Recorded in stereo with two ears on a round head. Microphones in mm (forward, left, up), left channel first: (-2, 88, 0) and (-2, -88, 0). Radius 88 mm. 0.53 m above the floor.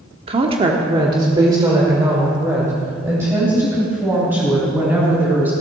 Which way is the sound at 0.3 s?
30° right (ahead or behind).